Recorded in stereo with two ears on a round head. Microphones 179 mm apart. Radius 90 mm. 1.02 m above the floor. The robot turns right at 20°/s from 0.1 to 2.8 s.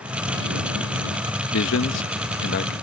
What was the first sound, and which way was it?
A man speaking, 70° left (ahead or behind).